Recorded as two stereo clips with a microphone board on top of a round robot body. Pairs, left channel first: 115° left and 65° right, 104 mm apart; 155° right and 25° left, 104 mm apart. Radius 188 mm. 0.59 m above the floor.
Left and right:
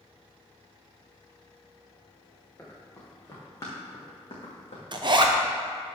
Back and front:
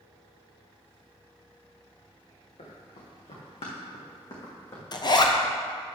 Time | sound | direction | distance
2.6 | running footsteps | 175° right | 3.5 m
4.9 | a zipper | 110° right | 1.0 m